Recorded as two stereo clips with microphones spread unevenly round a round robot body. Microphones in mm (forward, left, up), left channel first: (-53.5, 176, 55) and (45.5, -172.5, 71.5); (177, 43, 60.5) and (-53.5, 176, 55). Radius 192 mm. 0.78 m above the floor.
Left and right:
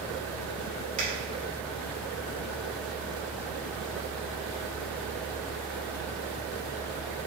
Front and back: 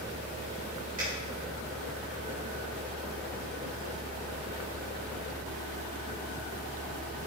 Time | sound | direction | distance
1.0 | a finger snap | 145° right | 3 m